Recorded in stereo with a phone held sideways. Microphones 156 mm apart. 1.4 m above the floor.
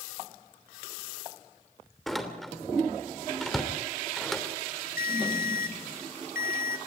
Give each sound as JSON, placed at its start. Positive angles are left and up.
{"t": 2.1, "sound": "a door slam", "side_deg": 0, "distance_m": 3.0}
{"t": 5.0, "sound": "a ringtone", "side_deg": 65, "distance_m": 1.1}